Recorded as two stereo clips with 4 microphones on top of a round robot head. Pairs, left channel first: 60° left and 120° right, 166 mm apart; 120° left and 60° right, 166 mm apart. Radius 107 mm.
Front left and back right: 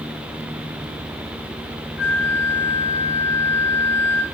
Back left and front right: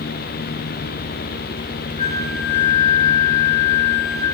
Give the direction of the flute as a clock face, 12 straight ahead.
10 o'clock.